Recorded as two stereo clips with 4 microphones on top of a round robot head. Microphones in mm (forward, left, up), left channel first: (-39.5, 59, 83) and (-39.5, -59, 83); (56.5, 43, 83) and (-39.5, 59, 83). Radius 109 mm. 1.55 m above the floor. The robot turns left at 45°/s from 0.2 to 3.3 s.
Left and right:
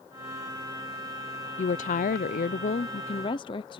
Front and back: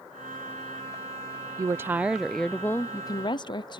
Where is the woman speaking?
115° left; by 3.8 s 35° left.